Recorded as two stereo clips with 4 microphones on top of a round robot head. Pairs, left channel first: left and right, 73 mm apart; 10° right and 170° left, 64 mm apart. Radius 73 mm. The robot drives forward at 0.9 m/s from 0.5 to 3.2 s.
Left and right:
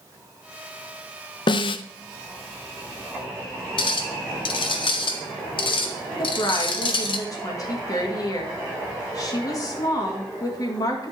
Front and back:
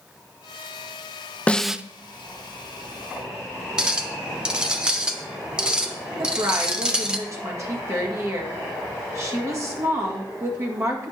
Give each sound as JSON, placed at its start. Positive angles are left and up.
{"t": 1.5, "sound": "a snare drum", "azimuth_deg": 65, "distance_m": 0.5}
{"t": 3.8, "sound": "a clink", "azimuth_deg": 95, "distance_m": 1.0}
{"t": 6.2, "sound": "a woman speaking", "azimuth_deg": 130, "distance_m": 2.0}